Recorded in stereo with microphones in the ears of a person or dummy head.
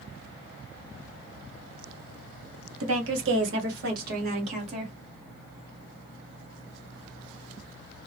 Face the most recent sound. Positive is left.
turn(degrees=-35)  # may be behind; listen again after turning